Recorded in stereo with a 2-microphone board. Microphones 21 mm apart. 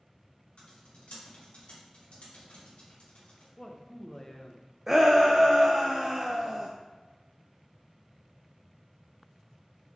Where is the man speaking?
25° left (ahead or behind), 1.0 m.